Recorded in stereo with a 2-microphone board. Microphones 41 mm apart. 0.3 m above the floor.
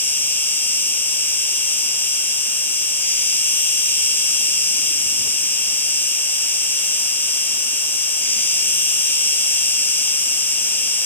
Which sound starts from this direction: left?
An insect, at 0.0 s.